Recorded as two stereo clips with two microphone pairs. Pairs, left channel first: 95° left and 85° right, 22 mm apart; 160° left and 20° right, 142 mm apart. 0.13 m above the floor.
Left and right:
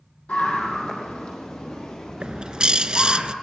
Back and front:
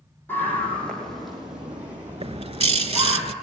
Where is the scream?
85° left, 4 m; by 3.2 s 45° left, 5.5 m.